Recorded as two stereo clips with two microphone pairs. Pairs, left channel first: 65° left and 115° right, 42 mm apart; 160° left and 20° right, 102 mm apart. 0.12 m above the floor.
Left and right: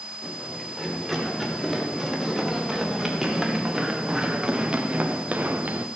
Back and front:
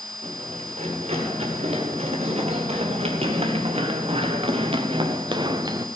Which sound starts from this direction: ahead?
Running footsteps, at 0.2 s.